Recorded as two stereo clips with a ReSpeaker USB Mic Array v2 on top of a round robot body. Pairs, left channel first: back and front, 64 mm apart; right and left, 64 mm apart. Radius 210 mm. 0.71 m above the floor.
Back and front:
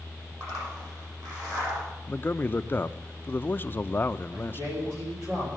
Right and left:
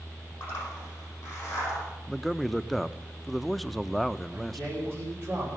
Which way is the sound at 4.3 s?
40° left.